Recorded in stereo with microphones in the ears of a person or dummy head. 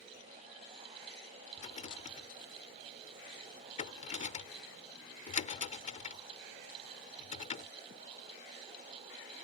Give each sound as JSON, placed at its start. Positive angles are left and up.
{"t": 1.6, "sound": "a rattle", "side_deg": 35}